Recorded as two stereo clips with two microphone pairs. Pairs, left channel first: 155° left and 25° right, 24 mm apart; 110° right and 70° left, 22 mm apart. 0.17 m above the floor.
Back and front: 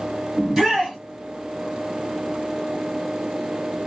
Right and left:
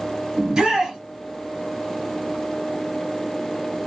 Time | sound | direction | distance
0.4 | a shout | 40° left | 2 m